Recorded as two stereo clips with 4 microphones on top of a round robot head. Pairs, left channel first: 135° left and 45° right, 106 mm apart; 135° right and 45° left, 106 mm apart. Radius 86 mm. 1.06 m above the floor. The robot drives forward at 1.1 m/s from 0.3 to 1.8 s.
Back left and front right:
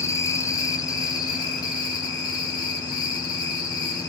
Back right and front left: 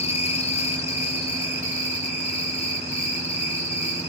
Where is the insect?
160° right, 1.4 m; by 4.1 s 170° right, 3 m.